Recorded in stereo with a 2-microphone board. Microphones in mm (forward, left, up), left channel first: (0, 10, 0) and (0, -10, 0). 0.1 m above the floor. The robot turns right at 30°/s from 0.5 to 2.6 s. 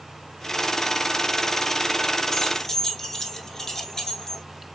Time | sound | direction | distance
2.3 | keys jangling | 25° left (ahead or behind) | 0.9 m